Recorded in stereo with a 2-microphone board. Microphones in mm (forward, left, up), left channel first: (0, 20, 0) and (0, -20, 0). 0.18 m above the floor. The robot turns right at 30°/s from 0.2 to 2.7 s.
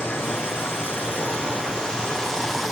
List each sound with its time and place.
0.0 s running water: 105° left, 2 m; by 2.7 s straight behind, 2 m